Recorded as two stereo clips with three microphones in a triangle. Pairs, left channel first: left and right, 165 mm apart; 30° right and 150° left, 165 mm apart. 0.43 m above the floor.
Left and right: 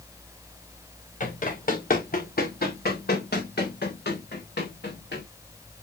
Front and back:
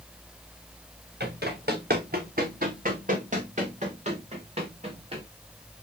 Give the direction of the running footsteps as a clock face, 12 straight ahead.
8 o'clock.